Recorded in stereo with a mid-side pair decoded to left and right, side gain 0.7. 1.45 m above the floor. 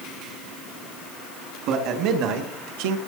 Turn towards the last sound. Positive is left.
turn(degrees=-80)